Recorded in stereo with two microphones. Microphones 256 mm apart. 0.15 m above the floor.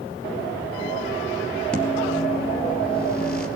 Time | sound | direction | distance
1.7 | a microwave | 5° left (ahead or behind) | 3 m